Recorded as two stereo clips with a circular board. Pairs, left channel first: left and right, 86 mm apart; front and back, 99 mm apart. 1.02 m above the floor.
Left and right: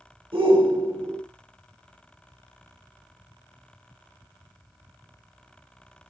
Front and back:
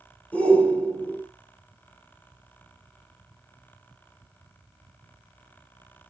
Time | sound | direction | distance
0.3 | a shout | 75° right | 3.5 m